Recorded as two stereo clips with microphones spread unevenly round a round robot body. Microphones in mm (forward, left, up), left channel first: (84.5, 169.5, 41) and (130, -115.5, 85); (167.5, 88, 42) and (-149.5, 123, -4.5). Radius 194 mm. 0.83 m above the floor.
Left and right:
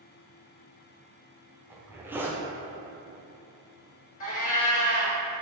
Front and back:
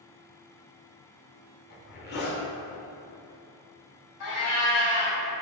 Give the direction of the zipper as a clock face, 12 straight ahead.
11 o'clock.